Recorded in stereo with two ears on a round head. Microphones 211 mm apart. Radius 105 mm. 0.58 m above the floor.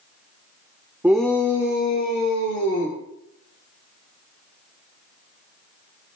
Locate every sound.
1.0 s a shout: 10° right (ahead or behind), 1.1 m; by 3.0 s 60° left (ahead or behind), 3 m